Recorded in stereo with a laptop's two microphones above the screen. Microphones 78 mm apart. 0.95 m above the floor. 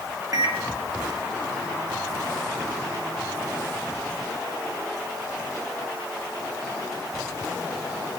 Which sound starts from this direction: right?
A microwave, at 0.3 s.